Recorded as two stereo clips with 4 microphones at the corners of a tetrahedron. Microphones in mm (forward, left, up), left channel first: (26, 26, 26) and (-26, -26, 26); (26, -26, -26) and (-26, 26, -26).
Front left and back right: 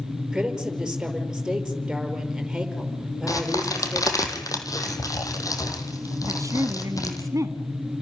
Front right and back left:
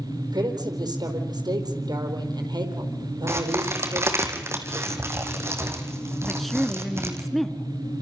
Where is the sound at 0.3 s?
140° left, 5 m.